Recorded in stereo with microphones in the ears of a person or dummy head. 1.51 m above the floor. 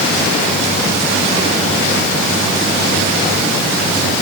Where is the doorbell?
I don't hear a doorbell.